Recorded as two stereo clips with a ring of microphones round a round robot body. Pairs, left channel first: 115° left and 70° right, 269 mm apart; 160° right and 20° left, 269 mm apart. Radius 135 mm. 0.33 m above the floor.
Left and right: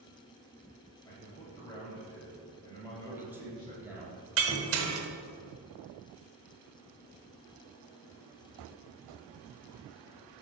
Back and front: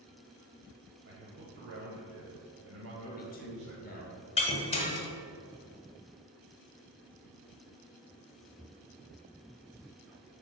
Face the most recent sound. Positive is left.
turn(degrees=-95)